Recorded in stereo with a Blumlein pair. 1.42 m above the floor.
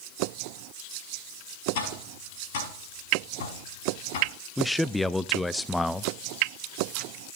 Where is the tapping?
50° left, 5 m.